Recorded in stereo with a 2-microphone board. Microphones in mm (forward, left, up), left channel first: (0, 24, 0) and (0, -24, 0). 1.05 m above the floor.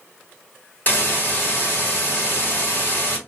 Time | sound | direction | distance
0.9 | a hiss | 35° left (ahead or behind) | 1.1 m